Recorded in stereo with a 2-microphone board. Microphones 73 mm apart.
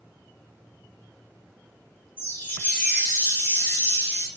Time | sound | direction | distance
2.2 | a chime | 25° left (ahead or behind) | 0.8 m